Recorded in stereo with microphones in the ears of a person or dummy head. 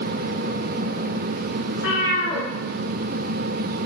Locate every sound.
1.7 s a cat meowing: 70° left (ahead or behind), 1.6 m